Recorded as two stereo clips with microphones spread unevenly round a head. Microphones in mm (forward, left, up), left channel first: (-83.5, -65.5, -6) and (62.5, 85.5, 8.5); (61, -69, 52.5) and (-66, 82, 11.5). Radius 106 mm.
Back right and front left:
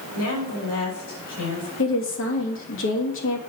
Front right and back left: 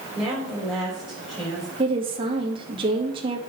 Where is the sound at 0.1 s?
140° right, 6 m.